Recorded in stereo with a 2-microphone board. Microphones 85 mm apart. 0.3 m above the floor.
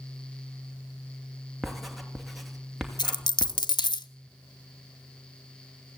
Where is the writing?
Centre (ahead or behind), 2.5 m.